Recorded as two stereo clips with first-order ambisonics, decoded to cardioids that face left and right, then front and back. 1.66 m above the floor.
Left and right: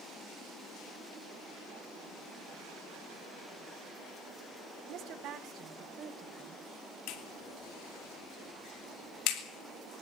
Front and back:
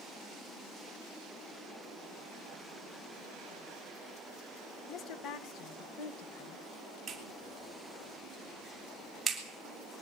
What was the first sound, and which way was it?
A woman speaking, 50° right.